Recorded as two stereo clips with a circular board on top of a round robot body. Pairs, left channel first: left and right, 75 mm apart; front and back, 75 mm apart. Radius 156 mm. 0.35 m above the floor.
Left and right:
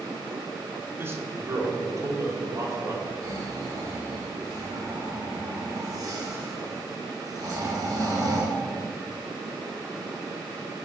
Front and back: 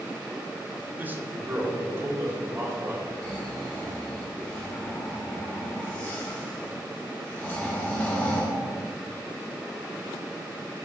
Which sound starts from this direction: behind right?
A man speaking, at 1.0 s.